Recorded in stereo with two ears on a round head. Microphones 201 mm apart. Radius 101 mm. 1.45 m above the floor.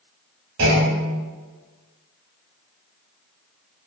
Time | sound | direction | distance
0.6 | a clunk | 65° right (ahead or behind) | 3.5 m